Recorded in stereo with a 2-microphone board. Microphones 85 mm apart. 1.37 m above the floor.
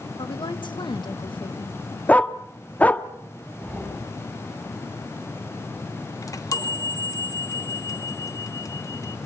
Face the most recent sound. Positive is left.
turn(degrees=40)  # may be behind; listen again after turning